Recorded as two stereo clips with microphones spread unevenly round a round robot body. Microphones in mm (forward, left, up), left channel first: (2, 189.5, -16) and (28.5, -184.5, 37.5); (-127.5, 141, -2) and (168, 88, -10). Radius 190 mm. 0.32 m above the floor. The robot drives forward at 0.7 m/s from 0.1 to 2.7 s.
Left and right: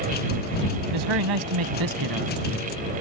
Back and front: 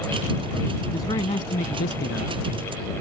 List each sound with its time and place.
0.9 s a man speaking: 110° right; by 2.4 s 135° right